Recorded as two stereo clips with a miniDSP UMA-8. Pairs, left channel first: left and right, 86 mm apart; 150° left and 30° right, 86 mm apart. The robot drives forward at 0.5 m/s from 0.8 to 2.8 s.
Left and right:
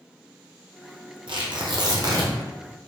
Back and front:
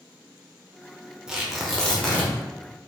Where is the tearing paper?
110° right, 0.8 m; by 2.3 s 135° right, 1.1 m.